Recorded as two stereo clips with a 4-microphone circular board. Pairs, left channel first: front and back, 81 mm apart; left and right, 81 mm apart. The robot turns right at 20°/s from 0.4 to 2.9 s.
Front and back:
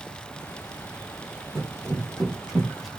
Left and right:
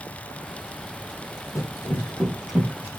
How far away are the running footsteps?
About 1.6 m.